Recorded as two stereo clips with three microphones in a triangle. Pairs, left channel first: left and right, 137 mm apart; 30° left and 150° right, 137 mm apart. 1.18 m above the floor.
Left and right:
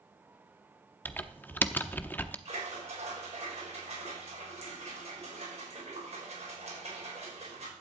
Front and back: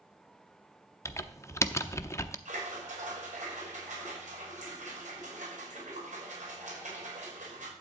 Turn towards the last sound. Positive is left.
turn(degrees=-125)